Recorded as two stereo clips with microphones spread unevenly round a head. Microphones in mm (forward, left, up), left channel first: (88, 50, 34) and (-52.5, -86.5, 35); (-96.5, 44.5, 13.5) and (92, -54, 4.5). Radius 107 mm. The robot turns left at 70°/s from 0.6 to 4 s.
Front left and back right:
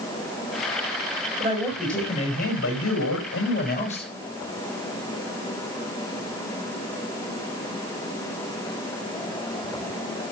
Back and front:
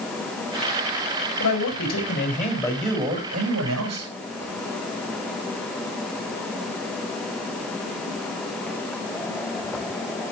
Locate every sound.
1.4 s a man speaking: 165° left, 5.5 m; by 4.1 s 20° right, 5.5 m